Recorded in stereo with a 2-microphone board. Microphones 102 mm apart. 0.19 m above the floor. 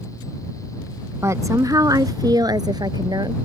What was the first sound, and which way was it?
A woman speaking, 30° right (ahead or behind).